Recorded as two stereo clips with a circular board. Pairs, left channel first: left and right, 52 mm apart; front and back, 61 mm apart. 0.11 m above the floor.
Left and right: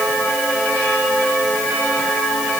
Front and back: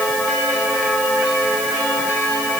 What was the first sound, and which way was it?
Only background noise.